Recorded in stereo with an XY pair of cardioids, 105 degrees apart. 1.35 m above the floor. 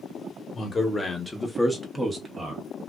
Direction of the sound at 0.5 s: 30° left.